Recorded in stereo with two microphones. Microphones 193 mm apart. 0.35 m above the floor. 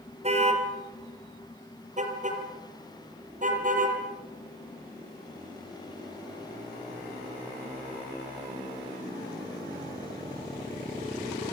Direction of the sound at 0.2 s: 35° right (ahead or behind).